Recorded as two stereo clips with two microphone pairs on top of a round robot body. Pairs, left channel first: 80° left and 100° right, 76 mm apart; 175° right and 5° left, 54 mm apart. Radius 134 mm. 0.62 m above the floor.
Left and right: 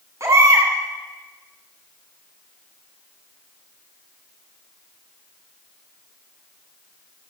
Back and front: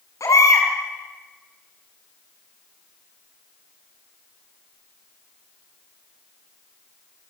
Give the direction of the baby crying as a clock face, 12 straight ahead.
5 o'clock.